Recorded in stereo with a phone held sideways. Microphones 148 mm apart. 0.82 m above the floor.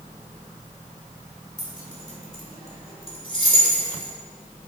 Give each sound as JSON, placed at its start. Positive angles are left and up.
{"t": 1.6, "sound": "keys jangling", "side_deg": 60, "distance_m": 2.5}